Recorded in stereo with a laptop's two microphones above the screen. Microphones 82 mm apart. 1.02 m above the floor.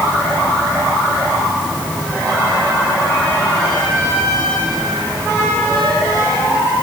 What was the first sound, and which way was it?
Only background noise.